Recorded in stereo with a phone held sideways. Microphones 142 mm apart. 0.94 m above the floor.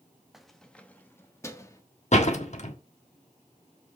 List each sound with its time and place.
0.3 s keys jangling: 5° right (ahead or behind), 0.9 m; by 1.8 s 25° left (ahead or behind), 1.5 m
2.1 s a door slam: 55° left (ahead or behind), 1.5 m